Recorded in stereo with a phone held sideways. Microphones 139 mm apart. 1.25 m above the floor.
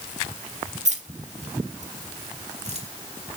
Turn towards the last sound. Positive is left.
turn(degrees=-50)  # may be behind; listen again after turning